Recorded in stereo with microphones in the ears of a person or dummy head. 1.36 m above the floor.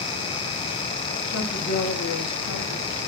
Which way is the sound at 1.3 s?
75° left (ahead or behind).